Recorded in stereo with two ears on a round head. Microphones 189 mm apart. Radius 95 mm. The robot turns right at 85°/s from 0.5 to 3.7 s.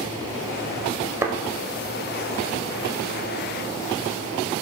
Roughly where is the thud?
Centre.